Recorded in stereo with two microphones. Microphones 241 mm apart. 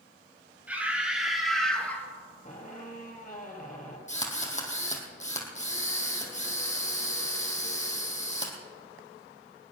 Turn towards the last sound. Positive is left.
turn(degrees=30)  # may be behind; listen again after turning